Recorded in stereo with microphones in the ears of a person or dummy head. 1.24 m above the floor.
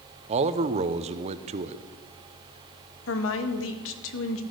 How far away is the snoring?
I don't hear snoring.